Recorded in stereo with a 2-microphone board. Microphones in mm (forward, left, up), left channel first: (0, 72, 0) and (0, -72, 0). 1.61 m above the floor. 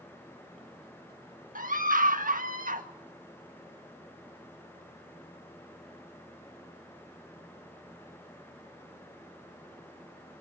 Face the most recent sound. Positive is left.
turn(degrees=-75)  # may be behind; listen again after turning